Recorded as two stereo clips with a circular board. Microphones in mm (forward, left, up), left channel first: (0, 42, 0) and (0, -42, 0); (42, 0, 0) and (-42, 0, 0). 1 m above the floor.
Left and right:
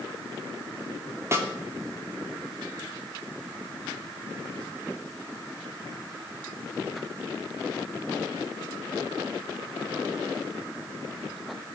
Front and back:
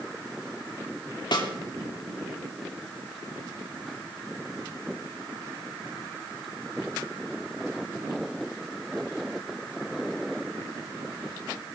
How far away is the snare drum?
About 2.5 m.